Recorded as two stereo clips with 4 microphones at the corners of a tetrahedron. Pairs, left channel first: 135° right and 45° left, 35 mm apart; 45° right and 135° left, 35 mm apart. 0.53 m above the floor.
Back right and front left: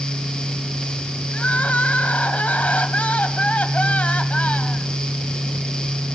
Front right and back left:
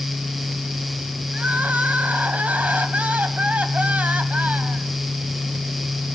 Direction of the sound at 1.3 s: Straight behind.